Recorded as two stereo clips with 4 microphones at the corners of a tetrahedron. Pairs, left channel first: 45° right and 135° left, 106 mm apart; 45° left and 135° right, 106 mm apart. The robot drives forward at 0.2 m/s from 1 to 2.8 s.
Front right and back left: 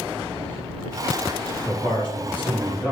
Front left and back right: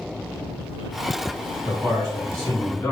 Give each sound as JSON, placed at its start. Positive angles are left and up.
{"t": 1.6, "sound": "a man speaking", "azimuth_deg": -160, "distance_m": 1.9}